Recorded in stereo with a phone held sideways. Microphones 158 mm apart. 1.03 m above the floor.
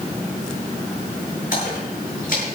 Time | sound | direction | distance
1.5 | a splash | 65° left (ahead or behind) | 7.5 m